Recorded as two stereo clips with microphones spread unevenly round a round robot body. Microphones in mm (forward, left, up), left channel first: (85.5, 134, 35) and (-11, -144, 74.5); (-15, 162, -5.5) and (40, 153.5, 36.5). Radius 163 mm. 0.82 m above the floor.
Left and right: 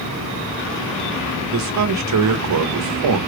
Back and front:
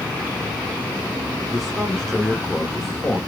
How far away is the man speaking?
About 0.9 m.